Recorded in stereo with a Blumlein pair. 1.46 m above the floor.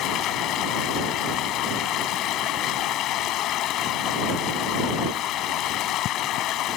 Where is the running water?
35° left.